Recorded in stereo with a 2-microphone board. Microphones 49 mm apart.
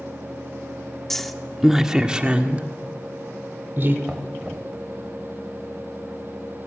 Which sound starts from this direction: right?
Knocking, at 4.0 s.